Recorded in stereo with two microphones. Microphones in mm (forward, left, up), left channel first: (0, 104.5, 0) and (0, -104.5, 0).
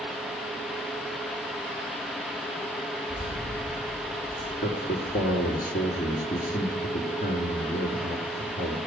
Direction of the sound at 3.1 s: 5° left (ahead or behind).